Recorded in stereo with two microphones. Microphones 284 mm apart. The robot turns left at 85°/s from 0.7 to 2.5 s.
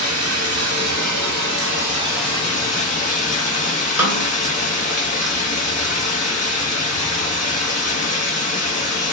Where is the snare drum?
5° right (ahead or behind), 0.8 m.